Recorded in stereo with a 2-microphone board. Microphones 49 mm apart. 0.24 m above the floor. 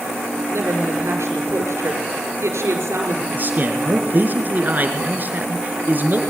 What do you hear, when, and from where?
0.5 s a woman speaking: 75° right (ahead or behind), 4.5 m
3.3 s a man speaking: 40° right (ahead or behind), 3.5 m